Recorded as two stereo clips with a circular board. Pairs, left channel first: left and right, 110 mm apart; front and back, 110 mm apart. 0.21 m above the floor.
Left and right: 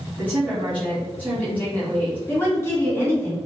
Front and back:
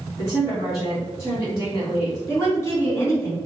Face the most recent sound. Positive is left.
turn(degrees=40)